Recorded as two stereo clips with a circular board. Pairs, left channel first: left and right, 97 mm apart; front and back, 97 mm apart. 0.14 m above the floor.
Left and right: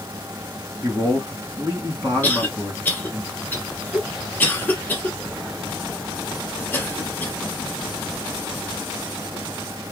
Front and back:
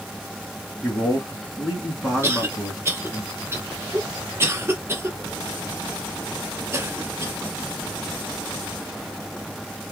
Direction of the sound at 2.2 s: 145° left.